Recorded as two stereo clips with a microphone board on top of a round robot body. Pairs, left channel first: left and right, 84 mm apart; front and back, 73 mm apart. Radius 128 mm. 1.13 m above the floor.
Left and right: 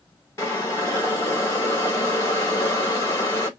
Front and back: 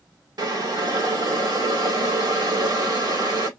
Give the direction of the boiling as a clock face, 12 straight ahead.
7 o'clock.